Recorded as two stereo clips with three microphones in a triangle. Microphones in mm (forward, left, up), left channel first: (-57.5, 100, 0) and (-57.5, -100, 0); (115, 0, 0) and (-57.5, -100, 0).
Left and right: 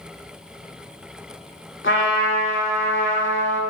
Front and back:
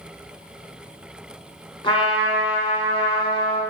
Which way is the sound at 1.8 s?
90° left.